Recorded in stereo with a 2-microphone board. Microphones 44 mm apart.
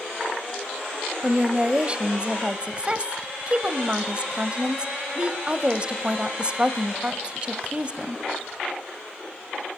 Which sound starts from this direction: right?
A woman speaking, at 1.2 s.